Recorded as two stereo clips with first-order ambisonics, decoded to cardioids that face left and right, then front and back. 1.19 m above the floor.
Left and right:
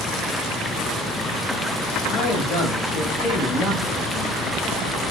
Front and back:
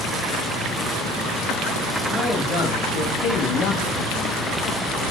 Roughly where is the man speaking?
Ahead left.